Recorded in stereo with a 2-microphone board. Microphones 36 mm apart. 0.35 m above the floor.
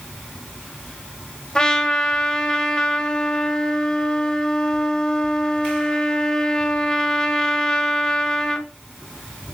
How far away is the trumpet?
About 1.3 m.